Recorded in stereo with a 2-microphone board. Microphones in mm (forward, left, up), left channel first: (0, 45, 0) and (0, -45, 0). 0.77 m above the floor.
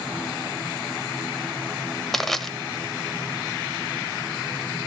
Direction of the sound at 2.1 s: 5° left (ahead or behind).